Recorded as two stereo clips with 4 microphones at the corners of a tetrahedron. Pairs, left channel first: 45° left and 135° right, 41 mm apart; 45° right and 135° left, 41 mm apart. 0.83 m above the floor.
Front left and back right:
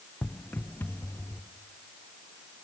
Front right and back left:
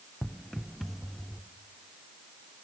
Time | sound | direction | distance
0.2 | footsteps | 30° left | 1.0 m